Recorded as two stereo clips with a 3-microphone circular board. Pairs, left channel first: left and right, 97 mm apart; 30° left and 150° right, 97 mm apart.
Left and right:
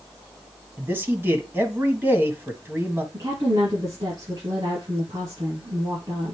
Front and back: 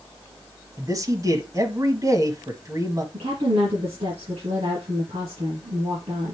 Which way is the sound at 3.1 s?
140° right.